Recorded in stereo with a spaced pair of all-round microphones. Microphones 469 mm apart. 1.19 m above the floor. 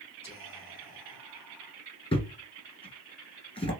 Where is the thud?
10° left (ahead or behind), 1.8 m.